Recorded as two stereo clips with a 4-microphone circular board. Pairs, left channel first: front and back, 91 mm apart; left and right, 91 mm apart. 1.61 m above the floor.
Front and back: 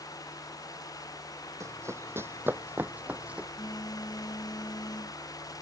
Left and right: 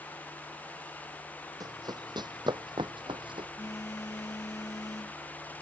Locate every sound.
1.6 s running footsteps: 130° right; by 3.5 s 100° right
3.6 s a phone buzzing: 40° left